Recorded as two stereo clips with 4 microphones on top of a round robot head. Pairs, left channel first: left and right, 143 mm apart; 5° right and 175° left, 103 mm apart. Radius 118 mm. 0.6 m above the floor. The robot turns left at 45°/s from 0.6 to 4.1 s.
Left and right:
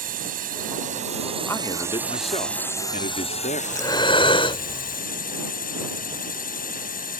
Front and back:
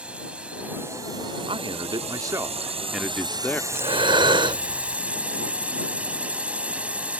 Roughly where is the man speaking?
Behind.